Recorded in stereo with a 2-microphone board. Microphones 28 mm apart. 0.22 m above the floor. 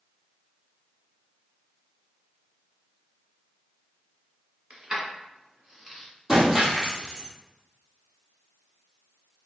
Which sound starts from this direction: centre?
Breaking glass, at 6.3 s.